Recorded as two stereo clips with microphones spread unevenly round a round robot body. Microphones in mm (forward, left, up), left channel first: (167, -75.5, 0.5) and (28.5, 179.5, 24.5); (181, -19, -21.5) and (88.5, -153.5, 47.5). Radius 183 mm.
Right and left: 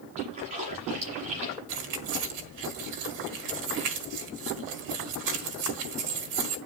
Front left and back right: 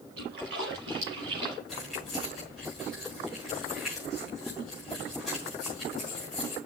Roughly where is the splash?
Behind.